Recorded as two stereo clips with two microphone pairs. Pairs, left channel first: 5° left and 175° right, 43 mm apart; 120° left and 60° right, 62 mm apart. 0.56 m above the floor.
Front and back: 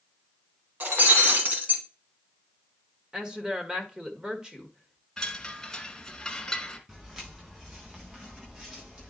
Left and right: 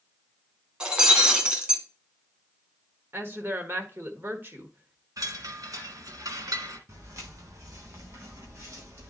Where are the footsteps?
100° right, 6 m; by 9.1 s 110° right, 7 m.